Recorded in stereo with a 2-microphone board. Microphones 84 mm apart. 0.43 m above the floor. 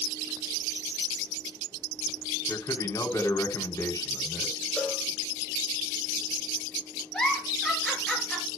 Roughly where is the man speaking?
Left.